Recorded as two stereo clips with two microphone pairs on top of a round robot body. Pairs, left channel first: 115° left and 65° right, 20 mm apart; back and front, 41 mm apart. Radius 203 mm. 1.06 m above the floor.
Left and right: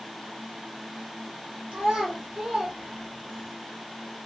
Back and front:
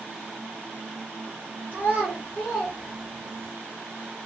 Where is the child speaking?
50° right, 0.8 m; by 3.5 s 120° right, 1.1 m.